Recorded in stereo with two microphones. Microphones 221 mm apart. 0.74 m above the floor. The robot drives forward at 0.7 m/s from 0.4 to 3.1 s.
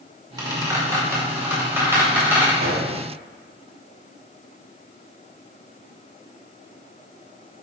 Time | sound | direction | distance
0.4 | a squeak | 20° right (ahead or behind) | 1.8 m
2.6 | a gunshot | 80° right | 3 m